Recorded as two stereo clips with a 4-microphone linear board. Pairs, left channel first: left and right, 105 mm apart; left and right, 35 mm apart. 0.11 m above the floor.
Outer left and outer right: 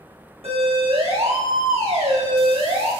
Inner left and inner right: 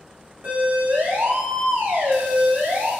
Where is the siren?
65° right (ahead or behind), 7.5 m; by 2.9 s 80° right, 9.5 m.